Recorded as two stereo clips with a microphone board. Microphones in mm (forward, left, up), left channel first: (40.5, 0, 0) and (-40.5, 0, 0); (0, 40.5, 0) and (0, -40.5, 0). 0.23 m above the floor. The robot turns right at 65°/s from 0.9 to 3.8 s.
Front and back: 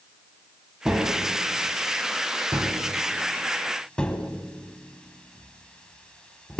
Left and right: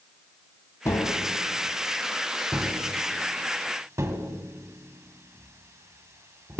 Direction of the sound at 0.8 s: 105° left.